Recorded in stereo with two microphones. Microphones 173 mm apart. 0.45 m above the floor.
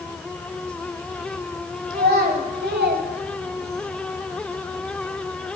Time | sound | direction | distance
1.9 | a child speaking | 60° right (ahead or behind) | 1.9 m